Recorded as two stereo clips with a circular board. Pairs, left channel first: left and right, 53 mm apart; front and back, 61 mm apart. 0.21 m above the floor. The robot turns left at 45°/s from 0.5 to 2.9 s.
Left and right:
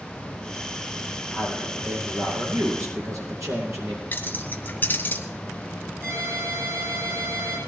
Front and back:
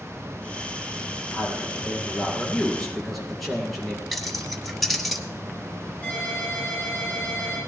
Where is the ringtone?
65° right, 7.5 m.